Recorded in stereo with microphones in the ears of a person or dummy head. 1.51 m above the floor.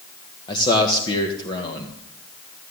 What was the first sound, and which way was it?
A man speaking, 25° left (ahead or behind).